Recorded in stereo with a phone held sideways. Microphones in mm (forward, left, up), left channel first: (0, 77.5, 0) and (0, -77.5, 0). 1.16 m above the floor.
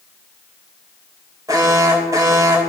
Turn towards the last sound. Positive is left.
turn(degrees=-20)  # may be behind; listen again after turning